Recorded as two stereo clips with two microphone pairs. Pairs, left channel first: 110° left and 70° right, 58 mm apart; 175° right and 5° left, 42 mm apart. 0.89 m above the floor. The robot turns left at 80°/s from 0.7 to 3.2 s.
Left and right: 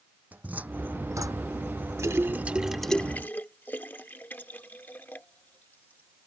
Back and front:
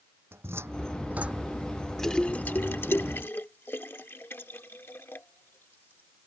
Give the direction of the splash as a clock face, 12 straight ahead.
3 o'clock.